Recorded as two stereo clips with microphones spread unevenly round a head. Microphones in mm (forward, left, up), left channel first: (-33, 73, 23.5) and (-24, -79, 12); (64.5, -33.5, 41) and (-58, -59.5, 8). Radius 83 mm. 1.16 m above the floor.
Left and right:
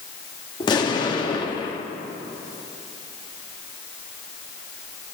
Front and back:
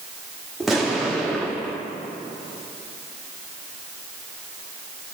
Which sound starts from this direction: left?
An explosion, at 0.6 s.